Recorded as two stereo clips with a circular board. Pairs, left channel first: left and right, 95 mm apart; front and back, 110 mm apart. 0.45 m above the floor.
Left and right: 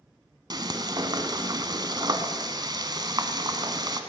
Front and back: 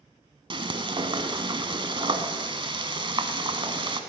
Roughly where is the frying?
Behind right.